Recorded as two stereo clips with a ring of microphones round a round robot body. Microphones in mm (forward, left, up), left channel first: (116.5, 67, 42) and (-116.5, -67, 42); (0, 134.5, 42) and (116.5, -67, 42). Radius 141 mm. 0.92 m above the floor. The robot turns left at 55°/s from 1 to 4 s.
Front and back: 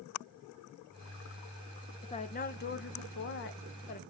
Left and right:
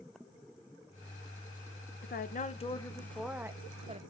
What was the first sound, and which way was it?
A woman speaking, 95° left.